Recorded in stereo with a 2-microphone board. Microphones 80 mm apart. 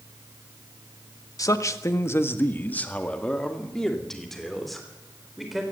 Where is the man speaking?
45° left (ahead or behind), 1.4 m; by 5.6 s 5° right (ahead or behind), 4 m.